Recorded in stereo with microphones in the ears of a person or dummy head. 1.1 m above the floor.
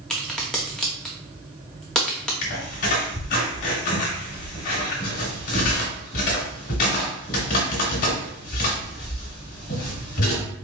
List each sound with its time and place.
0.1 s a crack: 5° left (ahead or behind), 0.9 m
2.4 s a squeak: 50° left (ahead or behind), 1.6 m